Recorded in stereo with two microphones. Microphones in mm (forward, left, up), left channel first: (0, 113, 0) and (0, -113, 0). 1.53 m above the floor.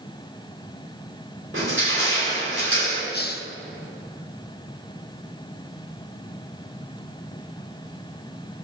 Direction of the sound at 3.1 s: 45° left (ahead or behind).